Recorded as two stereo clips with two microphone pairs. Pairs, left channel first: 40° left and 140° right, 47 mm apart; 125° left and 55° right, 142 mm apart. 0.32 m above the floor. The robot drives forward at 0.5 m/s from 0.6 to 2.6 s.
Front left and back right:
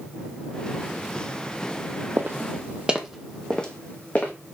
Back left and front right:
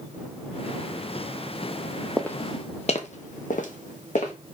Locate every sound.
2.2 s footsteps: 150° right, 0.6 m; by 4.3 s 95° left, 1.2 m